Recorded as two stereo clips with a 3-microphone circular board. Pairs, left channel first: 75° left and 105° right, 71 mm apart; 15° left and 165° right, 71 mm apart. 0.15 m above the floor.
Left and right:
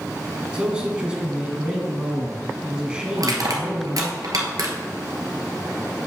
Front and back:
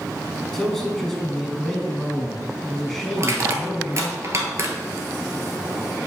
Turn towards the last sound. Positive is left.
turn(degrees=-125)